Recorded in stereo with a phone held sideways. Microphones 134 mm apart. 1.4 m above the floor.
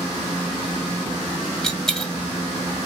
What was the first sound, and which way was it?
A dropped coin, 5° left (ahead or behind).